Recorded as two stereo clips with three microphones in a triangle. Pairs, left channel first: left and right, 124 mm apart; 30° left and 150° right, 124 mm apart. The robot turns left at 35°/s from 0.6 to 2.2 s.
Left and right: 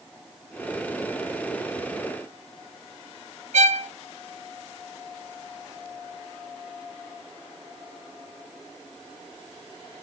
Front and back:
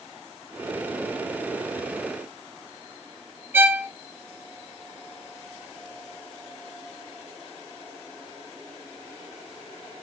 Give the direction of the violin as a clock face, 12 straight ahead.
2 o'clock.